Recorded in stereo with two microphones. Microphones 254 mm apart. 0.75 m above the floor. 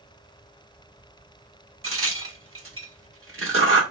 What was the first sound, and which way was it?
A crack, 55° right (ahead or behind).